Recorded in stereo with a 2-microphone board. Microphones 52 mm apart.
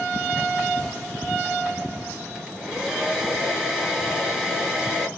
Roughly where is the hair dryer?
Centre.